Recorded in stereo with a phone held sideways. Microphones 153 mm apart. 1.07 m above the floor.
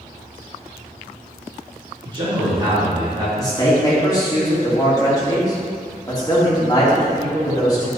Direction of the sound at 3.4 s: 25° left (ahead or behind).